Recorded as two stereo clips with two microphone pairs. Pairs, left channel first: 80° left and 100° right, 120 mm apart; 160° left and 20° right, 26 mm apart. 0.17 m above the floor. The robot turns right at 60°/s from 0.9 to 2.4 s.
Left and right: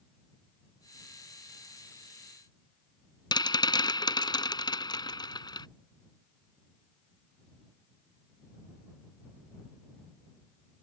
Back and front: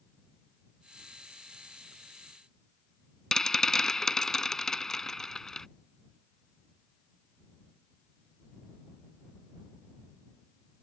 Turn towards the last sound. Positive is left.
turn(degrees=100)